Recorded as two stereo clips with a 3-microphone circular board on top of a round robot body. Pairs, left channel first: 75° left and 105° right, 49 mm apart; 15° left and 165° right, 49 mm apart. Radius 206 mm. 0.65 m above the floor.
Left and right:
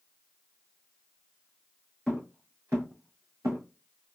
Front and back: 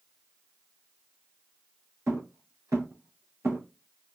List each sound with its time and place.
2.1 s footsteps: 170° left, 0.8 m; by 3.6 s 115° right, 1.1 m